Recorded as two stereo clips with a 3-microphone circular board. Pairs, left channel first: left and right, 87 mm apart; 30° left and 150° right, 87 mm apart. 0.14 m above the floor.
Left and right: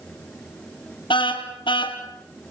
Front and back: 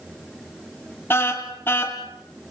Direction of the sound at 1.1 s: 90° left.